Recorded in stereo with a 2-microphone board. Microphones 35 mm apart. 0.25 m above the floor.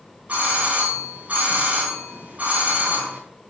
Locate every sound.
0.3 s a doorbell: 40° right (ahead or behind), 3 m